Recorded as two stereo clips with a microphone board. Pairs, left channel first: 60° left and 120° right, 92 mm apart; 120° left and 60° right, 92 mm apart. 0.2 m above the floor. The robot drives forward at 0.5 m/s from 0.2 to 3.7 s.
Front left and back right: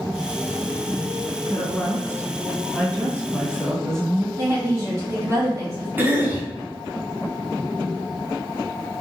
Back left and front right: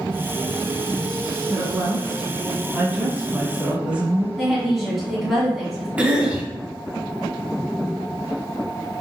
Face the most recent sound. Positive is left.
turn(degrees=-115)